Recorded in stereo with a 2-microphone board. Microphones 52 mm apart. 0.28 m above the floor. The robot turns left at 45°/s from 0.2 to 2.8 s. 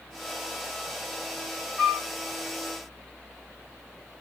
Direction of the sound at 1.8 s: 15° left (ahead or behind).